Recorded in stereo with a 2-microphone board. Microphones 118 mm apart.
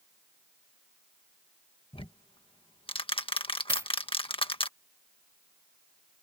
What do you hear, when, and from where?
1.9 s ticking: 50° left (ahead or behind)
3.7 s a dropped coin: 25° right (ahead or behind)